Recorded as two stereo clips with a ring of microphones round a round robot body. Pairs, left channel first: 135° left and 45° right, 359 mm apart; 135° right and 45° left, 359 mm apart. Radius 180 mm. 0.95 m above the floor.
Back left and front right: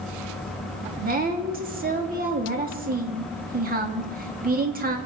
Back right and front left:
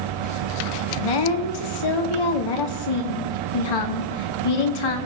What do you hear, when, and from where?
1.0 s a woman speaking: 115° right, 2.5 m